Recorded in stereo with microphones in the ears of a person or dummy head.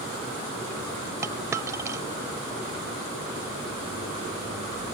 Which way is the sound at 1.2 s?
15° right (ahead or behind).